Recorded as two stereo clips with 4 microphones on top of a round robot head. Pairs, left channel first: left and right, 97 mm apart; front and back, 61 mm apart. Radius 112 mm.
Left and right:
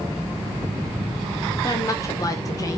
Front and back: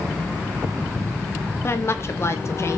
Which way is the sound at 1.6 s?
40° left.